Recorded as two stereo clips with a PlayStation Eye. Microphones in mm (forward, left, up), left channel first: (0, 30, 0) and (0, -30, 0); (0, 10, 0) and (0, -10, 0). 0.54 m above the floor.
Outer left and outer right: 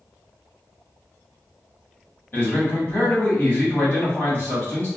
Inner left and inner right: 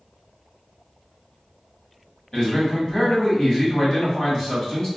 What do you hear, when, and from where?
2.3 s a man speaking: 40° left (ahead or behind), 1.4 m